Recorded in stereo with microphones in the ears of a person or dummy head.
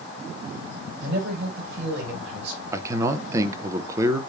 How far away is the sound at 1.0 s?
About 6.5 m.